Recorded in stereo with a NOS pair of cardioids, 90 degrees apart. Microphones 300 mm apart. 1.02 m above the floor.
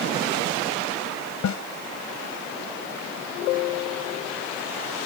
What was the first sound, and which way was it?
A snare drum, 60° left.